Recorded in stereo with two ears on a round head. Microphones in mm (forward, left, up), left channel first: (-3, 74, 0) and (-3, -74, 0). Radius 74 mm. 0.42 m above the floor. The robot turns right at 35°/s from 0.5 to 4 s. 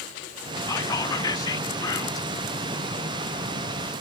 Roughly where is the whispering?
Centre.